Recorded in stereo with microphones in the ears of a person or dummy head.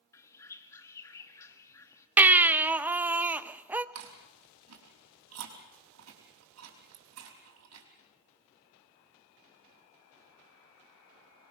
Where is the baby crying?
10° right (ahead or behind), 0.6 m.